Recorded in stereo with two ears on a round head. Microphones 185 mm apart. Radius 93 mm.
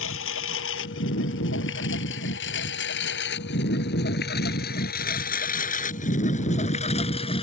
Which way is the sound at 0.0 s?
75° left (ahead or behind).